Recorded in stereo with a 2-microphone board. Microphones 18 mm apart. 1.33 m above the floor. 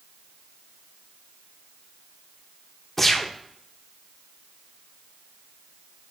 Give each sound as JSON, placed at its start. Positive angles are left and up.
{"t": 3.0, "sound": "a gunshot", "side_deg": 15, "distance_m": 0.9}